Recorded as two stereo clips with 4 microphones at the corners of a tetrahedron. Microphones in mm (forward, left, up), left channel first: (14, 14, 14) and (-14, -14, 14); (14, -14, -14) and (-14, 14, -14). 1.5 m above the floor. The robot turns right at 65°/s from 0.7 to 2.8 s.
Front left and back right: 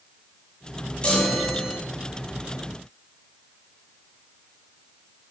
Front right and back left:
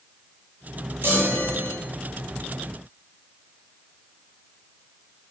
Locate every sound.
1.0 s a chime: 110° left, 0.7 m; by 1.8 s 160° left, 0.7 m